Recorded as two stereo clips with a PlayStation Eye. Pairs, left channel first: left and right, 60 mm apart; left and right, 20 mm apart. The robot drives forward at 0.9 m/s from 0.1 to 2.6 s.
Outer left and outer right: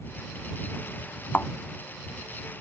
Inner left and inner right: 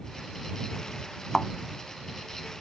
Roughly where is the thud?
Left.